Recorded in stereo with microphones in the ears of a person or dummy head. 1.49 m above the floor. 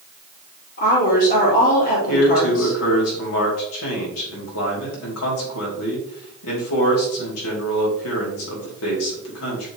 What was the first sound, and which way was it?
A woman speaking, 50° left (ahead or behind).